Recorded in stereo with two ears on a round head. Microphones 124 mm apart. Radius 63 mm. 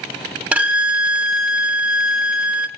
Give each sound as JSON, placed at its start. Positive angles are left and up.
{"t": 0.5, "sound": "a violin", "side_deg": -10, "distance_m": 1.0}